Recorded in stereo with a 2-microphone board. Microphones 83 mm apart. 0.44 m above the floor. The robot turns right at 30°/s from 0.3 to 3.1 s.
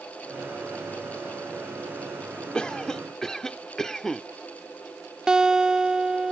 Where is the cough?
10° left (ahead or behind); by 4.2 s 5° left (ahead or behind).